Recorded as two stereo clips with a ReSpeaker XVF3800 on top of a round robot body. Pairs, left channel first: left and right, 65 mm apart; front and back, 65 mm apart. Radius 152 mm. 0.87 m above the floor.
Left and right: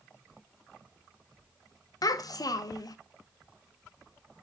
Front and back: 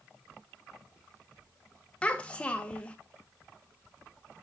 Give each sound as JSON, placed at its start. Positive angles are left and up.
{"t": 2.0, "sound": "a child speaking", "azimuth_deg": 70, "distance_m": 0.9}